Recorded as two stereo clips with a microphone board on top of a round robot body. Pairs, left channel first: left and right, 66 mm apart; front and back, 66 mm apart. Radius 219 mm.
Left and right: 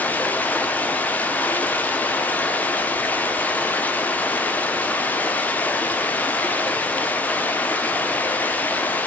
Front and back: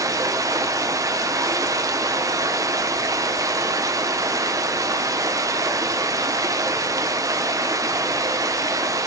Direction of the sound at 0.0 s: 155° left.